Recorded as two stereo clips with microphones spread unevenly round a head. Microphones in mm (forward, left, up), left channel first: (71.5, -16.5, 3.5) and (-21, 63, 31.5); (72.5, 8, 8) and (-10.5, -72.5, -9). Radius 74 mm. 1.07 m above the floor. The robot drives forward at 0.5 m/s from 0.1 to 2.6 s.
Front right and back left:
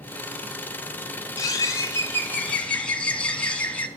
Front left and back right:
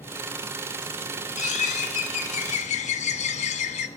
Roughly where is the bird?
Ahead left.